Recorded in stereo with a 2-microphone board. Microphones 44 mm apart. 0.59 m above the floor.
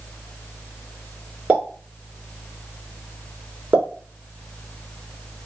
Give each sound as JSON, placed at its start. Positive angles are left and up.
{"t": 1.5, "sound": "a pop", "side_deg": -35, "distance_m": 2.0}